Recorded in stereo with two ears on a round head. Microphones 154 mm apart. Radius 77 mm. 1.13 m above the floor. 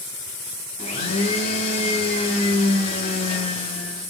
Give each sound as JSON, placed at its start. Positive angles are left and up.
{"t": 0.8, "sound": "a blender", "side_deg": 35, "distance_m": 3.0}